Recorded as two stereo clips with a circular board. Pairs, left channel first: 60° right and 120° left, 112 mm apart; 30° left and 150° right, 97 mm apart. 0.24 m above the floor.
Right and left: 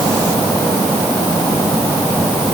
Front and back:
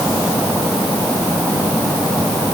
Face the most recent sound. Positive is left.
No sound to turn to.